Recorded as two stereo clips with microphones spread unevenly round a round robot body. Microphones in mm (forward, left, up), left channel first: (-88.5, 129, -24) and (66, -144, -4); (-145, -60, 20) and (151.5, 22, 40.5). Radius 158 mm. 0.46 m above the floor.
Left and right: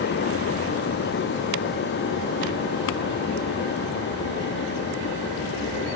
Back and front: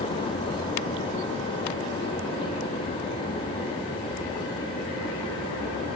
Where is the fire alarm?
No fire alarm in this recording.